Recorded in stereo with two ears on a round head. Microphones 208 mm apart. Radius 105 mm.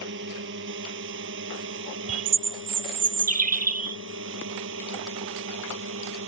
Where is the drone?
50° right (ahead or behind); by 6.3 s 55° right (ahead or behind).